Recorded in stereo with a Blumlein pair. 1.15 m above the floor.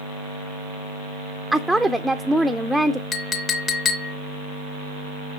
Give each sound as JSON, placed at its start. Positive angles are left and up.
{"t": 1.5, "sound": "a woman speaking", "azimuth_deg": 0, "distance_m": 0.5}
{"t": 3.1, "sound": "a clink", "azimuth_deg": 20, "distance_m": 0.7}